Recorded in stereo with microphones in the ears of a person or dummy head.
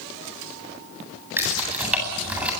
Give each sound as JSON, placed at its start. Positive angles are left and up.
{"t": 1.4, "sound": "keys jangling", "side_deg": -10, "distance_m": 9.0}